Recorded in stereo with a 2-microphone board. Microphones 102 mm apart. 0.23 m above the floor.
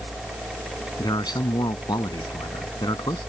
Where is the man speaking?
45° left (ahead or behind).